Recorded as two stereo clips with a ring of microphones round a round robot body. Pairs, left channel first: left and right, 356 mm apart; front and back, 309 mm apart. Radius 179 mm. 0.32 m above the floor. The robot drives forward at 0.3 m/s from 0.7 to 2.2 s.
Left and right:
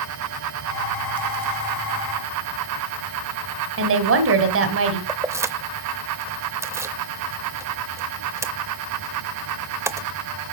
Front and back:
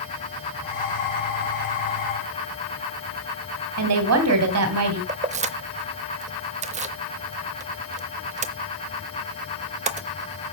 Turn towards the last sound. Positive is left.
turn(degrees=-160)